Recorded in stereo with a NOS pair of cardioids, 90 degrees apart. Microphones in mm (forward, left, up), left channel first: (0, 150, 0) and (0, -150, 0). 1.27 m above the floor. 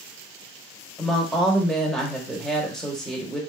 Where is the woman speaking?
Straight ahead, 1.1 m.